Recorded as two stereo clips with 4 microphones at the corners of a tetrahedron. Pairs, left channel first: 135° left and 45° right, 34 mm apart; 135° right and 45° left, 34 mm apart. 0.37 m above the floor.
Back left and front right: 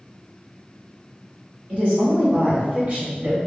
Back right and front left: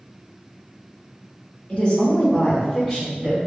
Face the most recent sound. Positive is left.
turn(degrees=-10)